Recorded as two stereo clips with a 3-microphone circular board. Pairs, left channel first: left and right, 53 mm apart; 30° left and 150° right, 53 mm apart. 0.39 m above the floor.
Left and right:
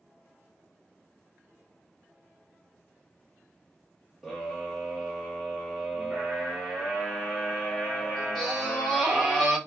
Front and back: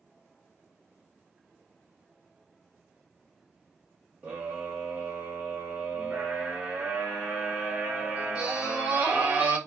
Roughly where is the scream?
Behind.